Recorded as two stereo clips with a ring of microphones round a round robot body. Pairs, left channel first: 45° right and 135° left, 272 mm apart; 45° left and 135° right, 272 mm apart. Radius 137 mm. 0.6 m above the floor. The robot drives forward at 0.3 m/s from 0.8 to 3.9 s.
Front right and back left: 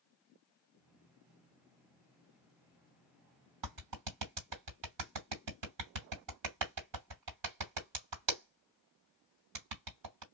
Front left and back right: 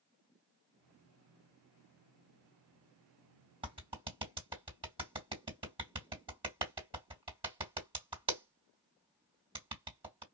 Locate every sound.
3.6 s a clap: 150° left, 2 m; by 10.2 s 155° left, 2 m